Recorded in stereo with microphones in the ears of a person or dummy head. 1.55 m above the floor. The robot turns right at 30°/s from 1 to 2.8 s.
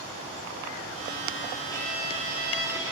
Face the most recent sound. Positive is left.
turn(degrees=-165)